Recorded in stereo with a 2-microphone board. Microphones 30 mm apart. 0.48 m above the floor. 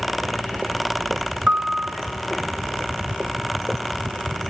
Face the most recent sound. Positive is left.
turn(degrees=-70)  # may be behind; listen again after turning